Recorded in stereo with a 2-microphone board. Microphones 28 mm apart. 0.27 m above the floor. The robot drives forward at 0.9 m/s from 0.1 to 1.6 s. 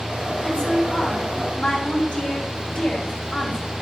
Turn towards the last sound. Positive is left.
turn(degrees=35)  # may be behind; listen again after turning